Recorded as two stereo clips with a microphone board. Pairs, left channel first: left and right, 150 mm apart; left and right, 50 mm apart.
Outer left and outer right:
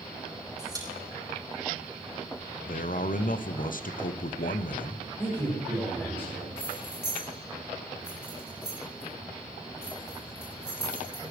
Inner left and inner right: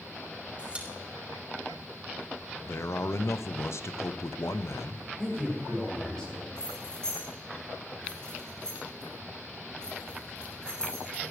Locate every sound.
0.6 s a pop: 25° right (ahead or behind), 4 m
2.7 s a man speaking: 65° left (ahead or behind), 0.8 m
5.2 s a man speaking: 15° left (ahead or behind), 8 m
6.6 s keys jangling: 15° left (ahead or behind), 6.5 m